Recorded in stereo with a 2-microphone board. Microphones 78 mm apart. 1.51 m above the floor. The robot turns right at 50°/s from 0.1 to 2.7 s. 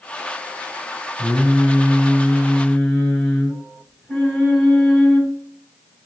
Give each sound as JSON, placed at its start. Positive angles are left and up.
{"t": 1.2, "sound": "singing", "azimuth_deg": 75, "distance_m": 1.9}